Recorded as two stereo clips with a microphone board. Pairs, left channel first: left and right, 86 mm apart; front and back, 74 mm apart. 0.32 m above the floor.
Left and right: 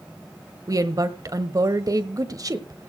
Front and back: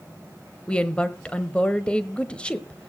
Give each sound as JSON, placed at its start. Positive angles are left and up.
{"t": 0.7, "sound": "a woman speaking", "azimuth_deg": -70, "distance_m": 1.2}